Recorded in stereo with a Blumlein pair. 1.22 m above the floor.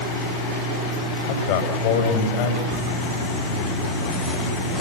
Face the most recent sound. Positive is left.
turn(degrees=5)